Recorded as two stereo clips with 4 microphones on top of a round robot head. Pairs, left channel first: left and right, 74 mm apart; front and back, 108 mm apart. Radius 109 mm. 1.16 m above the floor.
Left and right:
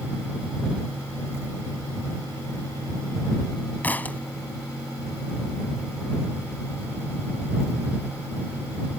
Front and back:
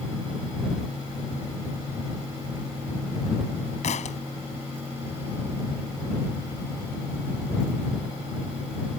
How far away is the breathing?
No breathing in this recording.